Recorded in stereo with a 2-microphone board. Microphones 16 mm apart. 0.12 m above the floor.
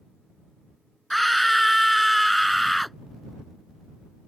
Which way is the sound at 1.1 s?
5° left (ahead or behind).